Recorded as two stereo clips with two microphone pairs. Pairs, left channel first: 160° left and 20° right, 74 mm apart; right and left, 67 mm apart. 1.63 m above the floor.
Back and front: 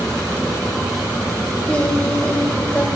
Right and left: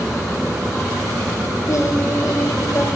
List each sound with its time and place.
1.7 s singing: 125° right, 1.3 m